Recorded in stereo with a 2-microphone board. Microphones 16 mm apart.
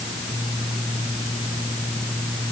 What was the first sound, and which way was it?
Only background noise.